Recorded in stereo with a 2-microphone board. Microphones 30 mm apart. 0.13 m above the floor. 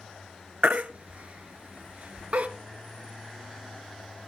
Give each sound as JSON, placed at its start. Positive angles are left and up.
{"t": 0.6, "sound": "a baby crying", "side_deg": -55, "distance_m": 0.8}